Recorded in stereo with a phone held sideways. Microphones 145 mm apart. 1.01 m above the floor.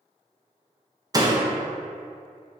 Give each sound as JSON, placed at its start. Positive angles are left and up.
{"t": 1.1, "sound": "a door slam", "side_deg": -25, "distance_m": 0.6}